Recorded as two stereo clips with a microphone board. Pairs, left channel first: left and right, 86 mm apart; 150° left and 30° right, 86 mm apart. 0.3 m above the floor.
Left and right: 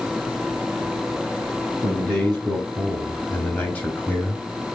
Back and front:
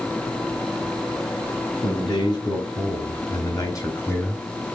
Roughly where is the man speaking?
Behind.